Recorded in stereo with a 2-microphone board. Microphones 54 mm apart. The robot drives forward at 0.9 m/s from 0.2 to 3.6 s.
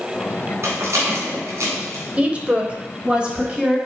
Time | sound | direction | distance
0.6 | a rattle | 60° right (ahead or behind) | 3 m
2.2 | a woman speaking | 25° right (ahead or behind) | 1.0 m